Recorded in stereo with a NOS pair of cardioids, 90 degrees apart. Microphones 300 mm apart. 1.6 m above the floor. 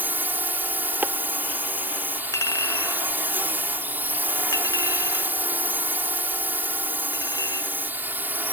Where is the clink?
15° left.